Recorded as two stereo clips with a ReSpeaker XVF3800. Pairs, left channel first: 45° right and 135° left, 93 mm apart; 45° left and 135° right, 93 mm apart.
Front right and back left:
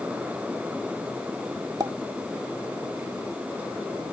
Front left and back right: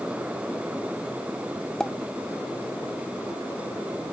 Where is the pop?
120° left.